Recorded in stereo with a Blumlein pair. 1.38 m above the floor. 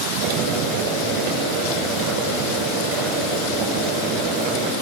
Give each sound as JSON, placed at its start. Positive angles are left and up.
{"t": 0.2, "sound": "boiling", "azimuth_deg": -50, "distance_m": 7.0}